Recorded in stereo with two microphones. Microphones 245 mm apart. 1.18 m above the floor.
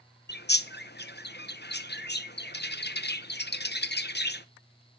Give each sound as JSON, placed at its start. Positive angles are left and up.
{"t": 0.3, "sound": "a bird", "side_deg": 45, "distance_m": 0.6}